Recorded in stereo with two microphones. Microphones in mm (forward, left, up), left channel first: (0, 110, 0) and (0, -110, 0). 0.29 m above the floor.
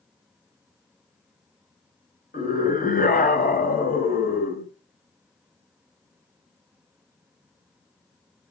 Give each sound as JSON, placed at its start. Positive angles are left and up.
{"t": 2.3, "sound": "a scream", "side_deg": 40, "distance_m": 1.7}